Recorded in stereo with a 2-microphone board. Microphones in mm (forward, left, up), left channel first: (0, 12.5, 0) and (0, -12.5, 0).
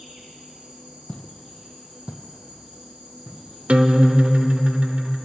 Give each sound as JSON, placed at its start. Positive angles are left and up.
{"t": 0.0, "sound": "an insect", "side_deg": -55, "distance_m": 3.5}
{"t": 1.1, "sound": "footsteps", "side_deg": 50, "distance_m": 0.7}
{"t": 3.7, "sound": "a guitar", "side_deg": -60, "distance_m": 0.5}